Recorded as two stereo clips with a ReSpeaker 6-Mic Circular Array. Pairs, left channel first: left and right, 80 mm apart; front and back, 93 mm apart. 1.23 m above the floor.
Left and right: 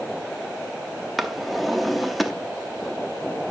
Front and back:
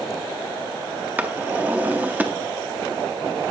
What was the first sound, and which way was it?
A drawer, straight behind.